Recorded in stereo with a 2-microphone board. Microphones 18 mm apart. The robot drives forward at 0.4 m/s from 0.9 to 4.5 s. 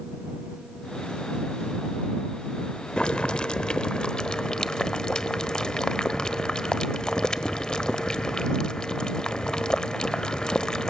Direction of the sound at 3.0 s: 50° left (ahead or behind).